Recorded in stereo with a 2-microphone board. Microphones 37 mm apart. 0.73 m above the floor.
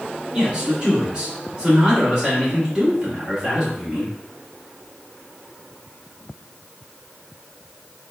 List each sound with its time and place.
0.3 s a man speaking: 25° right (ahead or behind), 1.4 m